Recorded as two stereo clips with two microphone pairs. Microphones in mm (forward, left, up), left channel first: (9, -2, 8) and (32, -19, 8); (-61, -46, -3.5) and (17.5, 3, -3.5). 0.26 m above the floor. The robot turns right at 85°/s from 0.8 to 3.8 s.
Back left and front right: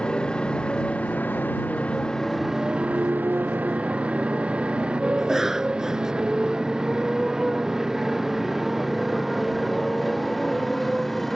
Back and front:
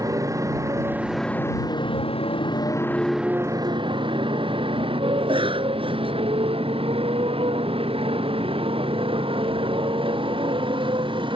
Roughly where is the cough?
Ahead left.